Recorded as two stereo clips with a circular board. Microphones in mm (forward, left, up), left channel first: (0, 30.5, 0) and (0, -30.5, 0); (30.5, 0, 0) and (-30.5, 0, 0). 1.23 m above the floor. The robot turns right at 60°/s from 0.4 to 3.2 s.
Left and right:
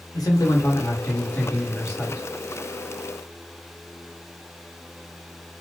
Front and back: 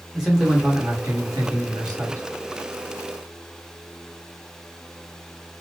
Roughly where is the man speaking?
Left.